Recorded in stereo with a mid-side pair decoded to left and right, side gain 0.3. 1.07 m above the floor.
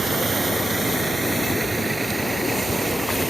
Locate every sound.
0.0 s a vehicle: 55° right; by 3.3 s 25° right